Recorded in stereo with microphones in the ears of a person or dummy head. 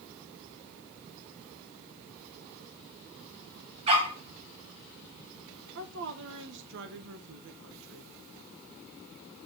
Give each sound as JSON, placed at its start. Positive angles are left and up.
{"t": 3.9, "sound": "a dog barking", "side_deg": -35, "distance_m": 4.0}
{"t": 5.8, "sound": "a woman speaking", "side_deg": -65, "distance_m": 1.5}